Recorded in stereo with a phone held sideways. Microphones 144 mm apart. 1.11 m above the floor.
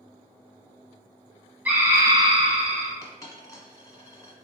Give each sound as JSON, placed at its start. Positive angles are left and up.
{"t": 1.6, "sound": "a scream", "side_deg": -10, "distance_m": 1.4}
{"t": 3.0, "sound": "a dropped coin", "side_deg": 25, "distance_m": 1.0}